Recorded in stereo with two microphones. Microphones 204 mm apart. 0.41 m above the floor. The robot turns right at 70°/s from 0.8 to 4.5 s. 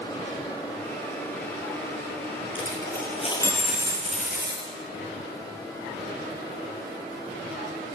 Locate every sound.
2.5 s a dropped coin: 105° left, 4 m; by 4.7 s 120° right, 4 m